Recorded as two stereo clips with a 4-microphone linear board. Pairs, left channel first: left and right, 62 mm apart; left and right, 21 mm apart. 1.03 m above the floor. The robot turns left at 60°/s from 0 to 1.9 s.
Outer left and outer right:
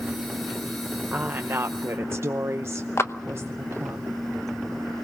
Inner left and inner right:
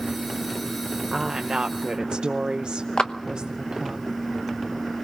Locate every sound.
1.1 s a woman speaking: 35° right, 0.7 m; by 4.0 s 85° right, 0.7 m
3.0 s a clap: 45° left (ahead or behind), 0.9 m